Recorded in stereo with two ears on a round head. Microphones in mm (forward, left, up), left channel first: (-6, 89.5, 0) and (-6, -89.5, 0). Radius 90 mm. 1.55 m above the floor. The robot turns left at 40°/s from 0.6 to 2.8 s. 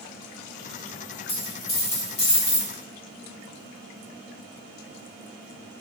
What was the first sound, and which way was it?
A dropped coin, 30° left (ahead or behind).